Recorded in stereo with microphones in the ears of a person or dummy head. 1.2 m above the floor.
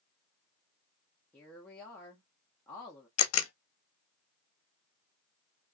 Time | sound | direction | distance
1.3 | a woman speaking | 10° left (ahead or behind) | 0.6 m
3.2 | a camera shutter | 80° left | 0.5 m